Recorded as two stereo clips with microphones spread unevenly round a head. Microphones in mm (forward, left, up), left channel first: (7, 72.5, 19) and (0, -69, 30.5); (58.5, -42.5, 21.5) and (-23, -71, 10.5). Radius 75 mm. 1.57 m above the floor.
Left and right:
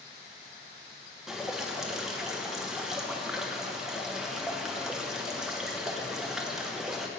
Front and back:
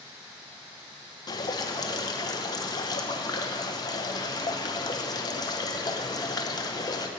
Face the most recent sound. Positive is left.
turn(degrees=-10)